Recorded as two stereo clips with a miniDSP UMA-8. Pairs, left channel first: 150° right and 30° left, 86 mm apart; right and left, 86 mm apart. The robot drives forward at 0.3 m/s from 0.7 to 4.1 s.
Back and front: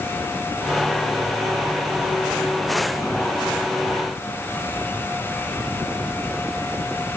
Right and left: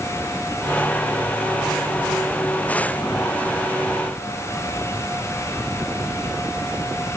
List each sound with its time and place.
Only background noise.